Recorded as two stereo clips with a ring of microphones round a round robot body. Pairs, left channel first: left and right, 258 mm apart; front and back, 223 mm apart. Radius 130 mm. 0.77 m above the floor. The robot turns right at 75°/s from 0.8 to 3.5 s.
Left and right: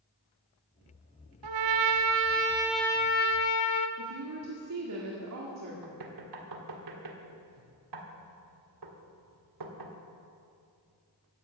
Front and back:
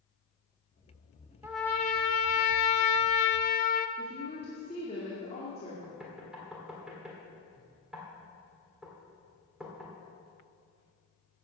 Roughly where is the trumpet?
Right.